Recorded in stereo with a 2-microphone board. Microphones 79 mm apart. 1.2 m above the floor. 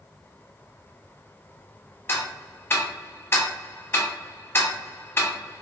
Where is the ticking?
30° left (ahead or behind), 0.6 m.